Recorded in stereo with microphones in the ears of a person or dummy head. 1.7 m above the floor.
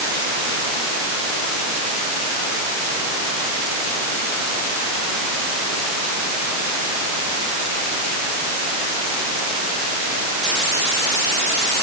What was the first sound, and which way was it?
Only background noise.